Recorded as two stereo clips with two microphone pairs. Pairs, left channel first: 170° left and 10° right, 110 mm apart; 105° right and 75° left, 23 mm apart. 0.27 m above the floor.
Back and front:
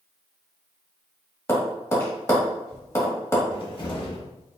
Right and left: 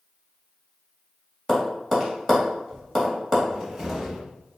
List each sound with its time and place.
1.5 s tapping: 170° right, 1.4 m
3.5 s a cupboard door: 150° left, 0.9 m